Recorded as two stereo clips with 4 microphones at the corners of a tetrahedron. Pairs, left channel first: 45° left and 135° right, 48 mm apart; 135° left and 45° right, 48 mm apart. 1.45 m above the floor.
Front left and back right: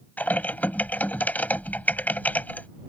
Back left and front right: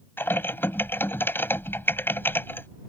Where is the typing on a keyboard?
95° left.